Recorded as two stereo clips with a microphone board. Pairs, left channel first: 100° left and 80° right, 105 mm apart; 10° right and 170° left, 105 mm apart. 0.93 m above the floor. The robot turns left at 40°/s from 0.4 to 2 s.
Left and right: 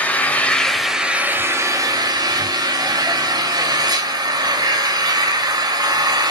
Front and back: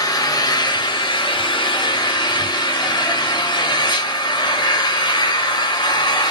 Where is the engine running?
25° left, 0.9 m; by 6.3 s 35° right, 0.9 m.